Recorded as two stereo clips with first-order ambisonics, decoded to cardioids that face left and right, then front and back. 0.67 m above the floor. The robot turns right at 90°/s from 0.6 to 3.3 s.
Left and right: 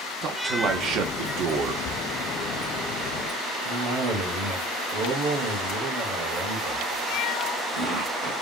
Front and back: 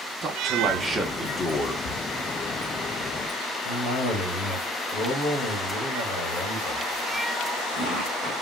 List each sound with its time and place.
0.2 s a man speaking: 135° right, 0.8 m; by 1.8 s 30° right, 0.8 m
1.9 s writing: 25° left, 0.8 m; by 2.0 s 35° left, 0.8 m
3.6 s a cough: 45° right, 1.6 m